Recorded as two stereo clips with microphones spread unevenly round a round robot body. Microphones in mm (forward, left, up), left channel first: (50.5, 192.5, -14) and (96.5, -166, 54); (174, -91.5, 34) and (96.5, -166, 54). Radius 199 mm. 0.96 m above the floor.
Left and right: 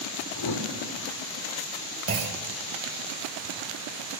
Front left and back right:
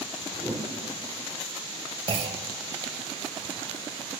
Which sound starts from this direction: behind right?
A clunk, at 2.1 s.